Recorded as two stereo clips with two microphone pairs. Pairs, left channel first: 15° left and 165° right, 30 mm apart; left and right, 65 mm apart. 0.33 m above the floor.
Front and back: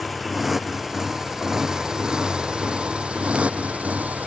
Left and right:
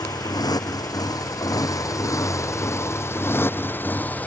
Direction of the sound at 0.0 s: 105° left.